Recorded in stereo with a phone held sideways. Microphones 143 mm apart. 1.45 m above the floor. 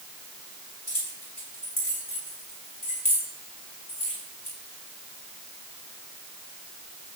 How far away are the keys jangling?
About 6 m.